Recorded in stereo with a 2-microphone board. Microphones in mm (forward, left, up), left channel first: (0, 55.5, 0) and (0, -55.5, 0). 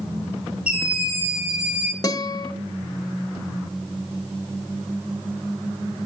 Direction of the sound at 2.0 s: 35° left (ahead or behind).